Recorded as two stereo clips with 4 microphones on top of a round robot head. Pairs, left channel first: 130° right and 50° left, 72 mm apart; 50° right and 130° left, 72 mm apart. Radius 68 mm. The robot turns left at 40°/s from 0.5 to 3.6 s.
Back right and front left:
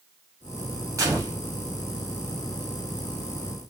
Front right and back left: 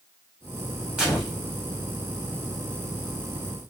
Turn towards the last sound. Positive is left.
turn(degrees=-45)